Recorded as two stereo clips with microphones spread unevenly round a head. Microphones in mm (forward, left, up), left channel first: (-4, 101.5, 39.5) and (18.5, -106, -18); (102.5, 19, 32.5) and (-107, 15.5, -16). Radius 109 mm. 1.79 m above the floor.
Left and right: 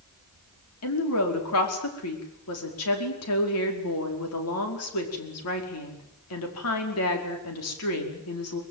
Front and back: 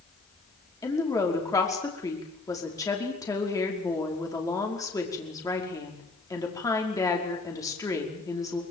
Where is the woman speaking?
75° left, 5 m.